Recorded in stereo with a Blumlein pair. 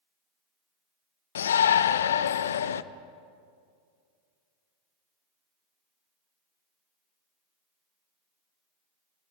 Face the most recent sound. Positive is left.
turn(degrees=65)